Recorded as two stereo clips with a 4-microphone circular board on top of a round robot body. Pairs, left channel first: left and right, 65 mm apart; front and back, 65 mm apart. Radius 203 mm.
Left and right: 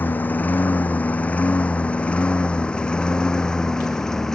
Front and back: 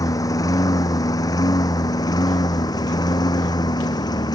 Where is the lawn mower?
30° left; by 4.3 s 10° left.